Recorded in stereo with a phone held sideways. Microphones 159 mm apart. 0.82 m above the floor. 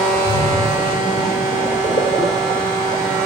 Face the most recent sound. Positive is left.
turn(degrees=60)  # may be behind; listen again after turning